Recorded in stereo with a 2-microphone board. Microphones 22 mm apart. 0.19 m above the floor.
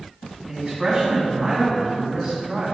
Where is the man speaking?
25° right (ahead or behind), 1.4 m.